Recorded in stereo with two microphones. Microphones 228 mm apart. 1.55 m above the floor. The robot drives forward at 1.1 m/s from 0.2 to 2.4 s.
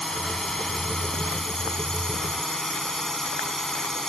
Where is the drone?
Centre (ahead or behind).